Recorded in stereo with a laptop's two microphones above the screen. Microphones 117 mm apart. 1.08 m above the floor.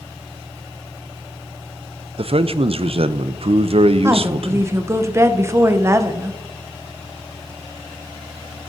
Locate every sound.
2.2 s a man speaking: 60° right (ahead or behind), 0.5 m
4.0 s a woman speaking: 25° right (ahead or behind), 0.6 m